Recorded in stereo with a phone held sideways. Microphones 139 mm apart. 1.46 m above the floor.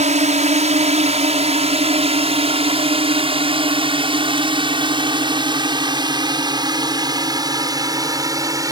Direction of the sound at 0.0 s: 60° right (ahead or behind).